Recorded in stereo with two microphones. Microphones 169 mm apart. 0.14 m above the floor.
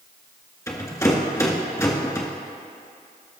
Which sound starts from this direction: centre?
A rattle, at 0.7 s.